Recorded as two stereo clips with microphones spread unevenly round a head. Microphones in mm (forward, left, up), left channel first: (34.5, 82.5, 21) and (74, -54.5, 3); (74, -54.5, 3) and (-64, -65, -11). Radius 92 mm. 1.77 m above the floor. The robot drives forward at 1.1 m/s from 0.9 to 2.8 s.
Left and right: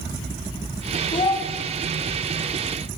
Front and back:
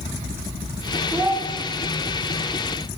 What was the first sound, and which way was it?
A child speaking, 95° left.